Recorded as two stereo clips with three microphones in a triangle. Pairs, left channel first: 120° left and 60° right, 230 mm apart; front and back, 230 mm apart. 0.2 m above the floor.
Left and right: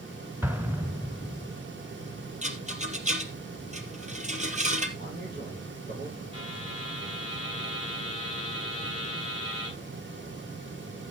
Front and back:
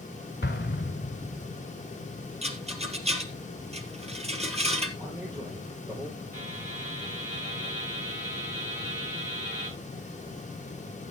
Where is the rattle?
115° right, 2 m.